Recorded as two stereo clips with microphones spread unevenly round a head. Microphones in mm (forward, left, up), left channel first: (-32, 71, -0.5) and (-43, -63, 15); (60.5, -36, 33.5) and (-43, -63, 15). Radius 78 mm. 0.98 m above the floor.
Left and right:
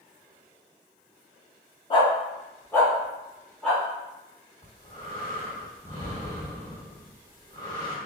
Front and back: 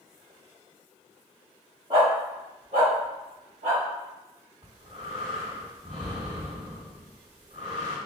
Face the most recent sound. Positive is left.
turn(degrees=130)